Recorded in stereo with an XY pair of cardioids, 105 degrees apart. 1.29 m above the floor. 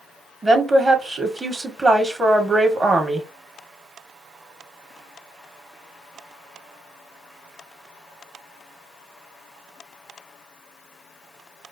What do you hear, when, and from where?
0.4 s a woman speaking: 25° right, 1.3 m